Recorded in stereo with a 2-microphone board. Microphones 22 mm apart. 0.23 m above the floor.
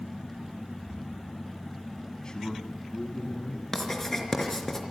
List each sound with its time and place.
2.2 s a man speaking: 35° left (ahead or behind), 2 m; by 3.6 s 60° left (ahead or behind), 3 m
3.7 s writing: 15° left (ahead or behind), 3.5 m